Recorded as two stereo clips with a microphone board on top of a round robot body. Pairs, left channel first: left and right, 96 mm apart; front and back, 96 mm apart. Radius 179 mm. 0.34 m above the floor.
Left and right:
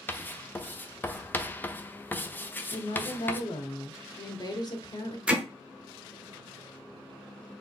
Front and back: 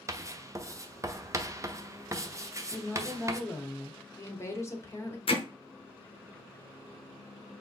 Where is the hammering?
10° right, 1.3 m.